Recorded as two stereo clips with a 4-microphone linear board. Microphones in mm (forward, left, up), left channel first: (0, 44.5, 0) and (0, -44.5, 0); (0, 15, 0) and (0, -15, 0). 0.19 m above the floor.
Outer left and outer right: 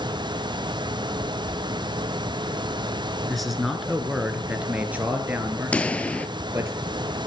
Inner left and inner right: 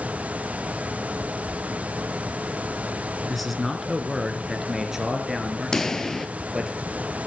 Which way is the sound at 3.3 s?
Centre (ahead or behind).